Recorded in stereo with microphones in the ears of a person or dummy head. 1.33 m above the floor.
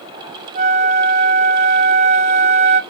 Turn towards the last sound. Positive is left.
turn(degrees=-30)  # may be behind; listen again after turning